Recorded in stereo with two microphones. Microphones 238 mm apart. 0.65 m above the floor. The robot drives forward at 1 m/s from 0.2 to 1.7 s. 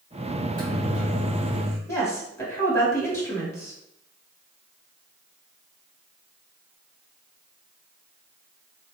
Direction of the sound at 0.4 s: 35° right (ahead or behind).